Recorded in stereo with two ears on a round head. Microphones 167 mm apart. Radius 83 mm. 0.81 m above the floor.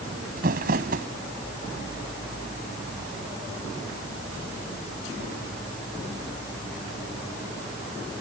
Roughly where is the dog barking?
No dog barking in this recording.